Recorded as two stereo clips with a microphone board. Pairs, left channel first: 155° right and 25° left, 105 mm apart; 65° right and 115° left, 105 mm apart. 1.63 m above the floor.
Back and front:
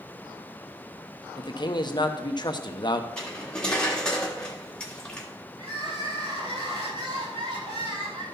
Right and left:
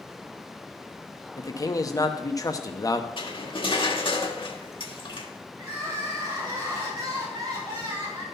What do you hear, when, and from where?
1.4 s a man speaking: 120° right, 0.8 m
3.2 s cutlery clinking: 75° right, 1.6 m
5.6 s crying: 55° left, 6.5 m